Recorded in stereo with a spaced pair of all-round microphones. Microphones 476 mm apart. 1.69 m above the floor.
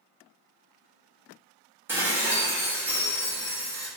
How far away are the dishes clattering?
About 0.7 m.